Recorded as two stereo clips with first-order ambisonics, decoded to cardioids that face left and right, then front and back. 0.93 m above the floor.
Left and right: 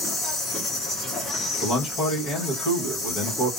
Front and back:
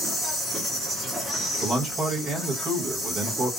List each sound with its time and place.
0.0 s an insect: 95° left, 1.1 m
1.6 s a man speaking: 120° left, 1.0 m